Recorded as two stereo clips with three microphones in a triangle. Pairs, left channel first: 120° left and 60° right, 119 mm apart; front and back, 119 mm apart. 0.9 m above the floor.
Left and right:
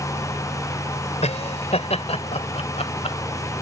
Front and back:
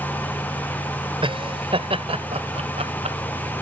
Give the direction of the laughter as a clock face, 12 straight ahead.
7 o'clock.